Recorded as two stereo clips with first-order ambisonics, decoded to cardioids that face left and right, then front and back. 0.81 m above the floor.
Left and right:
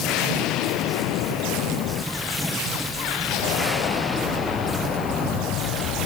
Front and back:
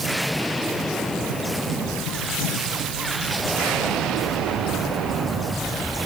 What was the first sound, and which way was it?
Only background noise.